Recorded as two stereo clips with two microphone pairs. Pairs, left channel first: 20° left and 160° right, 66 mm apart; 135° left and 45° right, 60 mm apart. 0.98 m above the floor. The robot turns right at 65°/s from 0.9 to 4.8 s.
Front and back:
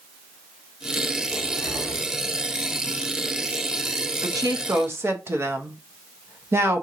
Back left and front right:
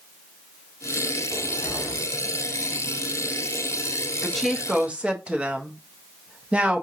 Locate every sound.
1.3 s a cupboard door: 5° left, 2.5 m; by 2.1 s 55° left, 2.5 m
4.2 s a woman speaking: 150° right, 0.9 m; by 6.8 s 110° right, 0.9 m